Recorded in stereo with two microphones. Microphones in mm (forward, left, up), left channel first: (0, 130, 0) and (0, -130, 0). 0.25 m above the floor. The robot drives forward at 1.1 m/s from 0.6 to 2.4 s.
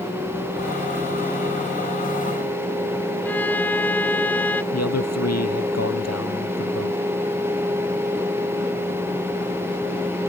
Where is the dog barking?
I don't hear a dog barking.